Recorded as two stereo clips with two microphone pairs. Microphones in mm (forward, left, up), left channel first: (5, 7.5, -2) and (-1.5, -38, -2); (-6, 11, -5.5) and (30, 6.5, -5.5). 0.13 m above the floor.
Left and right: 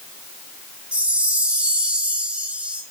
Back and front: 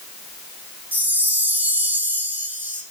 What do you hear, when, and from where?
0.9 s a chime: 35° right, 4.5 m